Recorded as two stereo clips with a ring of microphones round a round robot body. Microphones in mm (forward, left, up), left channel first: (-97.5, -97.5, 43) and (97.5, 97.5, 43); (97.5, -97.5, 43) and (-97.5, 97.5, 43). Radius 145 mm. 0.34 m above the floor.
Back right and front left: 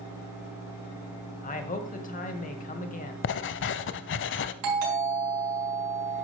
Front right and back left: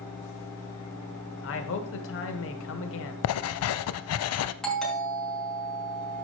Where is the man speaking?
75° right, 1.6 m.